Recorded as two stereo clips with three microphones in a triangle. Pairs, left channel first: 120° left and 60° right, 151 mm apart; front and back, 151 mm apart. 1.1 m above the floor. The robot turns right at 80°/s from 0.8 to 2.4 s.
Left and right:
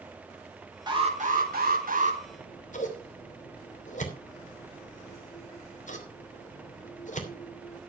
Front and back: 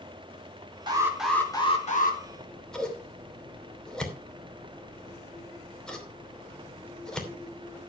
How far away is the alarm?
About 3.5 m.